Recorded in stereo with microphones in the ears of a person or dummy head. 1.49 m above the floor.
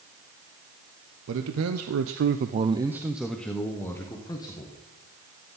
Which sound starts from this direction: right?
A man speaking, at 1.3 s.